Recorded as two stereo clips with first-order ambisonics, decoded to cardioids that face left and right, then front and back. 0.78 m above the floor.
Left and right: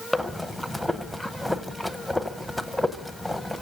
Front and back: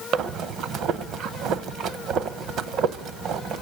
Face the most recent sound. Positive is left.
turn(degrees=180)